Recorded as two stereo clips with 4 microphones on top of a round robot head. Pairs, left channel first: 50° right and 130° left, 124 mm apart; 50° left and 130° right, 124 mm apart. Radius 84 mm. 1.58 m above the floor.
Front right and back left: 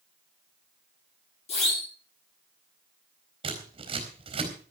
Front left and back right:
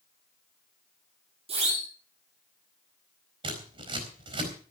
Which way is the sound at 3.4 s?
Straight behind.